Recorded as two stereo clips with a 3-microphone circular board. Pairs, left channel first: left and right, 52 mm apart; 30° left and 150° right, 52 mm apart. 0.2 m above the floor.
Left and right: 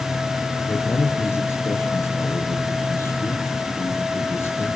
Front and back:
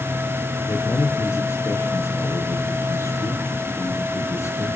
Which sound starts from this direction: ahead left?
A man speaking, at 0.7 s.